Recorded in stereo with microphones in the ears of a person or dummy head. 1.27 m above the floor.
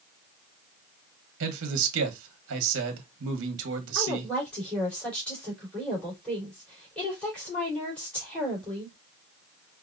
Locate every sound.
1.4 s a man speaking: 75° right (ahead or behind), 1.1 m
4.0 s a woman speaking: 5° left (ahead or behind), 3.5 m